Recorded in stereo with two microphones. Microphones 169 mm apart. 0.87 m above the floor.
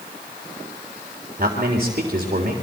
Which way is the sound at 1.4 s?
50° right (ahead or behind).